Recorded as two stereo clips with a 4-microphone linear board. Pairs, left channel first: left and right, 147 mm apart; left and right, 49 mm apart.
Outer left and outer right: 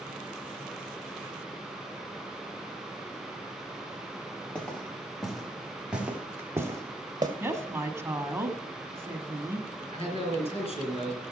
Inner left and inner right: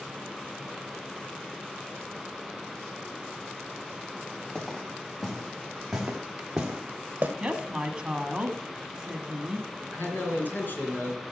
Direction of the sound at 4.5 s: 5° left (ahead or behind).